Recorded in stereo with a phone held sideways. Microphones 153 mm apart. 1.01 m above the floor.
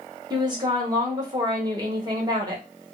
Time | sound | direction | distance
0.3 | a woman speaking | 25° right (ahead or behind) | 1.1 m